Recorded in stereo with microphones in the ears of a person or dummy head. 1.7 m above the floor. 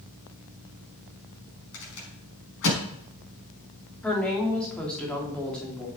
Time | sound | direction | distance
1.7 | a rattle | 75° left (ahead or behind) | 5 m
4.0 | a woman speaking | 10° left (ahead or behind) | 3 m